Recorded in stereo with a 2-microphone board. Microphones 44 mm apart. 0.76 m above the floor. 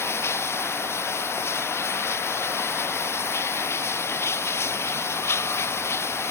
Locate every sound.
0.0 s running water: 70° left (ahead or behind)